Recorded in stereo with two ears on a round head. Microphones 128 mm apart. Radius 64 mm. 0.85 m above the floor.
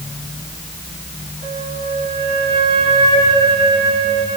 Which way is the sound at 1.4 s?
85° right.